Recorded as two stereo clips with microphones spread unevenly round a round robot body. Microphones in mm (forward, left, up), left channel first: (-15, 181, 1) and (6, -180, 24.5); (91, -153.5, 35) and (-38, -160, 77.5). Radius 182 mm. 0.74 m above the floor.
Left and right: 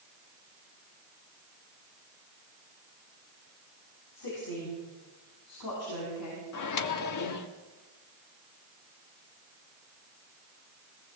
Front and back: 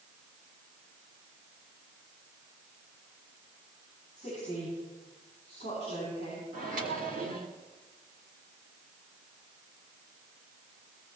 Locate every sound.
4.2 s a woman speaking: 115° left, 7.5 m; by 6.4 s 135° left, 7 m
6.5 s a microwave: 135° left, 1.1 m